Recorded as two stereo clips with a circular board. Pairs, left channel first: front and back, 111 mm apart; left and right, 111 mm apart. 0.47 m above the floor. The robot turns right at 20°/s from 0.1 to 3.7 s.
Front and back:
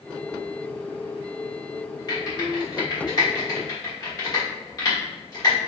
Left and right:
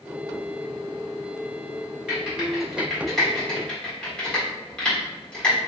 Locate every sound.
2.1 s typing on a keyboard: 20° right, 1.3 m; by 5.6 s 15° left, 1.3 m